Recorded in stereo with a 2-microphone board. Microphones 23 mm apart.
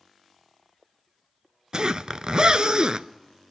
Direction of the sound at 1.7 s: 45° right (ahead or behind).